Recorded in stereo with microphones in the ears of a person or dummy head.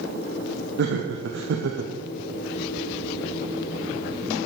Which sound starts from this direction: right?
Laughter, at 0.8 s.